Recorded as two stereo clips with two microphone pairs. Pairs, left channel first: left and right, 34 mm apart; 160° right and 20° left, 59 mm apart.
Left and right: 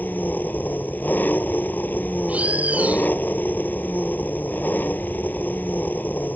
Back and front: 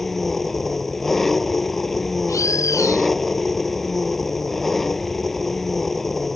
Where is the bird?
135° right.